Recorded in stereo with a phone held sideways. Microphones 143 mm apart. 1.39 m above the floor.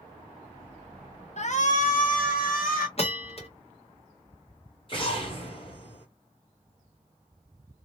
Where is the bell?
45° left (ahead or behind), 0.9 m.